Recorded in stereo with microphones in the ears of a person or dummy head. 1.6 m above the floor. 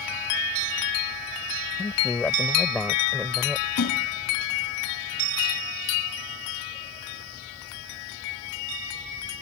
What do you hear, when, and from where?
1.8 s a man speaking: 10° left (ahead or behind); by 3.7 s 5° right (ahead or behind)
3.8 s a splash: 55° left (ahead or behind)